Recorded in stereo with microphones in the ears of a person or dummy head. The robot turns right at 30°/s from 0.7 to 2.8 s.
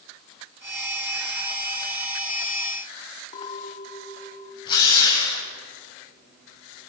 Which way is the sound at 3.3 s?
35° left (ahead or behind).